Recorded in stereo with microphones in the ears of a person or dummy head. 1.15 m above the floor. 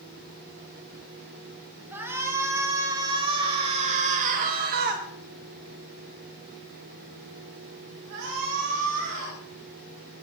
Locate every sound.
1.9 s a shout: 15° right (ahead or behind), 5 m; by 9.4 s 60° right (ahead or behind), 5.5 m